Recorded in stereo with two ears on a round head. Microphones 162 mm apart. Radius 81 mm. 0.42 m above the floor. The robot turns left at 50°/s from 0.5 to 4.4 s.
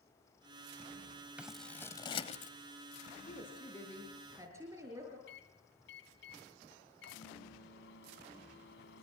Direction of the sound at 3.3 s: 40° left.